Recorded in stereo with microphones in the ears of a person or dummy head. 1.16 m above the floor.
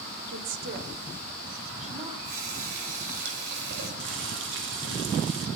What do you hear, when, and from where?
0.3 s a woman speaking: 75° right (ahead or behind), 2.5 m; by 2.1 s 35° right (ahead or behind), 3 m
2.2 s a running tap: 60° right (ahead or behind), 4.5 m
4.0 s boiling: 70° right (ahead or behind), 2.5 m